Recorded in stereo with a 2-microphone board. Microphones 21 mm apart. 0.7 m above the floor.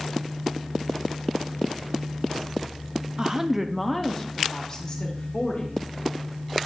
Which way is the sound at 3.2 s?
25° right (ahead or behind).